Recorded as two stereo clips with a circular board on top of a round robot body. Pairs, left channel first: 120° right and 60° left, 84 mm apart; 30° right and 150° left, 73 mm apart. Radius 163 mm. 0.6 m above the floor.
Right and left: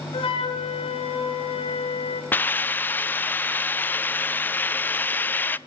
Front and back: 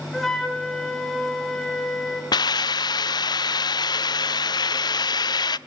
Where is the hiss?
55° right, 0.5 m.